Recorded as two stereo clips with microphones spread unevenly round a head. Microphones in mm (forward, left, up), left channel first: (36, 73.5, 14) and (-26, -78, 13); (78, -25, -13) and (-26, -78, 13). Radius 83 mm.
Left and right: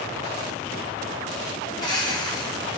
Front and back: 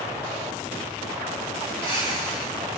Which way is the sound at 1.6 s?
135° left.